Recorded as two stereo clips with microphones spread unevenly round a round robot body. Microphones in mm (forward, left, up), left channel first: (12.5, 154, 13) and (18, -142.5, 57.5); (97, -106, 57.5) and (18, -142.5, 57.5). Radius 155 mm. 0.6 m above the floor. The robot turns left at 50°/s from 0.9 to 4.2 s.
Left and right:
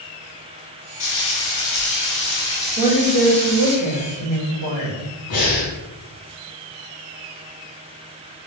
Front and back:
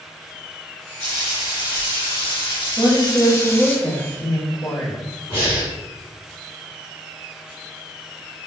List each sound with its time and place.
1.0 s frying: 90° left, 1.5 m; by 3.8 s 45° right, 1.5 m
2.8 s a woman speaking: 150° left, 1.5 m; by 5.1 s 80° left, 1.5 m
5.3 s breathing: 50° left, 1.6 m